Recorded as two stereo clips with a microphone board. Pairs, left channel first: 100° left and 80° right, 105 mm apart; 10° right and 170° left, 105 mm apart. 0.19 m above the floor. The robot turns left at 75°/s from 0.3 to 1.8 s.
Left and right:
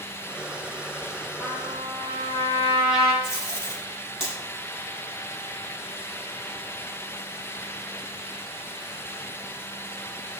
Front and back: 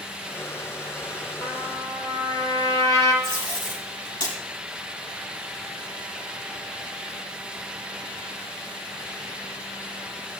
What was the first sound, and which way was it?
A trumpet, 25° right.